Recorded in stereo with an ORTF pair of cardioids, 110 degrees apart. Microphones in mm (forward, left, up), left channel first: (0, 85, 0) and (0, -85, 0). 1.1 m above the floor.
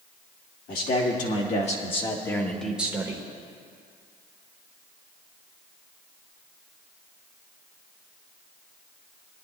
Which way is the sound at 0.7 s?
60° left.